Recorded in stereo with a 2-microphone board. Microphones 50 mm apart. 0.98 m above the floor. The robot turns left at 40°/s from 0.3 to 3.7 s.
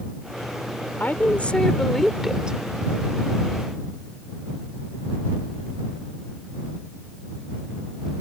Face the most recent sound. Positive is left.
turn(degrees=-65)